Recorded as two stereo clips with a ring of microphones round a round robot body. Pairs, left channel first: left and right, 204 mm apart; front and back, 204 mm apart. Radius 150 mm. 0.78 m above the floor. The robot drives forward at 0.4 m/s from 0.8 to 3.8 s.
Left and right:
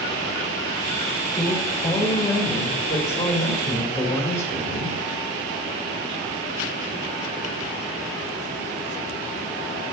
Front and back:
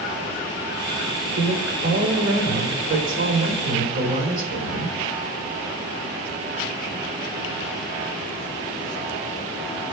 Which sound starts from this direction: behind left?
A woman speaking, at 1.4 s.